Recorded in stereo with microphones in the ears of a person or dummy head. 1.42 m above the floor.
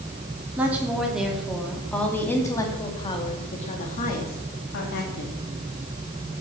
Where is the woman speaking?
10° right (ahead or behind), 3 m; by 5.3 s 65° left (ahead or behind), 2.5 m.